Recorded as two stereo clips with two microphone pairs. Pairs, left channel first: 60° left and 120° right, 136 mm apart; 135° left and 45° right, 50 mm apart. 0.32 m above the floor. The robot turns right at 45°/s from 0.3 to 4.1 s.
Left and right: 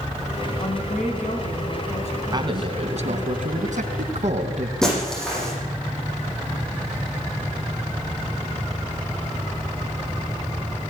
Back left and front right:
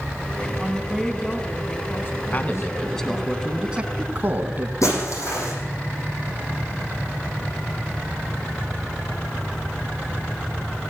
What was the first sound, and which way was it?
A woman speaking, 25° left.